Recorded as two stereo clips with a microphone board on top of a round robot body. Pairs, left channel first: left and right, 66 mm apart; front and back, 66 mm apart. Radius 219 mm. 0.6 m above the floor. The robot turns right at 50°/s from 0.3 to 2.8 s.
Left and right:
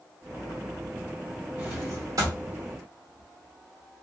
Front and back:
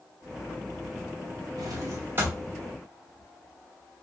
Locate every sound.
1.6 s a drawer: 150° right, 1.0 m; by 4.0 s 90° right, 1.0 m